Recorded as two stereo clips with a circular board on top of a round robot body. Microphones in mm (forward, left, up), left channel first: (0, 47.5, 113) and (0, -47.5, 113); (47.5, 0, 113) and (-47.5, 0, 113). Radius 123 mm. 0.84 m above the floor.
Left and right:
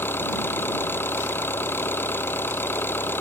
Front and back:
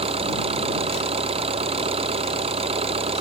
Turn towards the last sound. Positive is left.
turn(degrees=160)